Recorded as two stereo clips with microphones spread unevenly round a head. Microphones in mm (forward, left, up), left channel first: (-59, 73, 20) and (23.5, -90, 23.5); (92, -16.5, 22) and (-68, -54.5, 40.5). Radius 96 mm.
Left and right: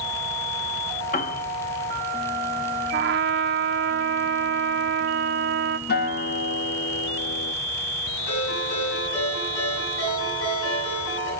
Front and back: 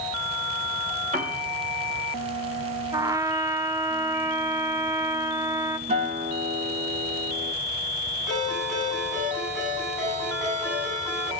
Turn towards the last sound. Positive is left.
turn(degrees=105)